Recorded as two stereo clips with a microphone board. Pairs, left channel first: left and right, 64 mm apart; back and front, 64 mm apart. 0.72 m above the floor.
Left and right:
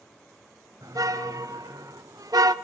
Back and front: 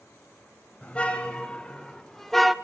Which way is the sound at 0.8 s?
110° right.